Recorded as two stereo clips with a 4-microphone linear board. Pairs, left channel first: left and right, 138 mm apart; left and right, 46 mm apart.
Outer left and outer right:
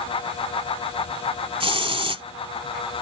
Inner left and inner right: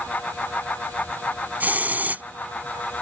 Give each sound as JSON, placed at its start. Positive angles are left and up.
{"t": 1.6, "sound": "a hiss", "side_deg": -45}